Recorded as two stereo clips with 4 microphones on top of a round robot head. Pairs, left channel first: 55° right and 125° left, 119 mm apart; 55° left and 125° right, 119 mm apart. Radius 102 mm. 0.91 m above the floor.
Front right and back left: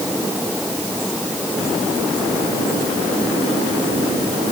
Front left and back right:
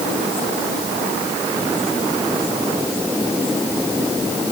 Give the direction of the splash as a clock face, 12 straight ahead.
I don't hear a splash.